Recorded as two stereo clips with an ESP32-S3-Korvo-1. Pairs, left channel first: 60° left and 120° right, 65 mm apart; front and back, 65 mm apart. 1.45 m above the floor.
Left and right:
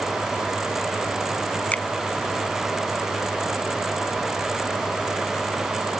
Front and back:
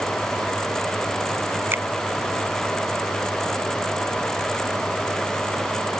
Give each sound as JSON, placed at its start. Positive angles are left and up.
{"t": 1.7, "sound": "a finger snap", "azimuth_deg": 125}